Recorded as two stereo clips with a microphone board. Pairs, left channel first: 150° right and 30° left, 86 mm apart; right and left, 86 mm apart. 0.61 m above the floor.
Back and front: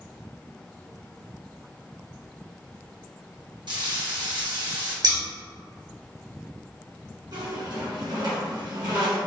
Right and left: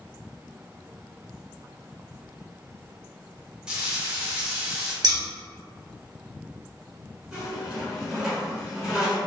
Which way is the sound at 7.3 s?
10° left.